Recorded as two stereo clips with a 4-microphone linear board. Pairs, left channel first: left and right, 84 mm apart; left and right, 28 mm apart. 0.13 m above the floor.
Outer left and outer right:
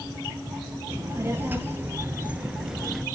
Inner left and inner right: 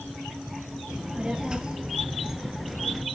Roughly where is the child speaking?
Right.